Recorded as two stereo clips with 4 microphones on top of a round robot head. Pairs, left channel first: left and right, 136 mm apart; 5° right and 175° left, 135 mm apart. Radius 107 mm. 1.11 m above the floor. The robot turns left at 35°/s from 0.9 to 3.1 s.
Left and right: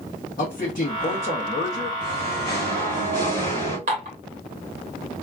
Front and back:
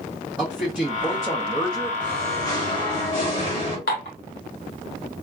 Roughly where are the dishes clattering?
Ahead right.